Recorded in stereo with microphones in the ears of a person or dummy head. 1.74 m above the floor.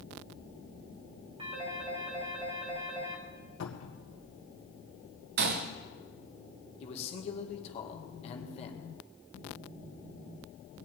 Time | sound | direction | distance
1.4 | a phone ringing | 35° right (ahead or behind) | 1.9 m
3.6 | a cupboard door | 80° left | 1.8 m
5.4 | a gunshot | 50° right (ahead or behind) | 0.9 m
6.8 | a man speaking | 40° left (ahead or behind) | 2 m